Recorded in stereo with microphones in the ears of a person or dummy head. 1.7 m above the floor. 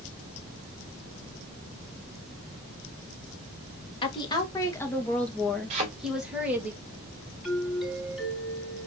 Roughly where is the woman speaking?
Left.